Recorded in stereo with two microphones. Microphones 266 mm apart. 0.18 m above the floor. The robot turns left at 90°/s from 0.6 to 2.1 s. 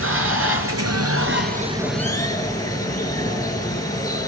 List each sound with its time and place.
0.0 s running water: 60° right, 2.5 m; by 4.3 s 165° left, 2.5 m